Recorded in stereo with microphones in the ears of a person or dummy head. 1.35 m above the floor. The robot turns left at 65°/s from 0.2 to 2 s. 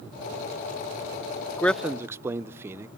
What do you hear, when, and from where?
1.6 s a man speaking: 10° left (ahead or behind), 0.5 m; by 2.9 s 15° right (ahead or behind), 0.5 m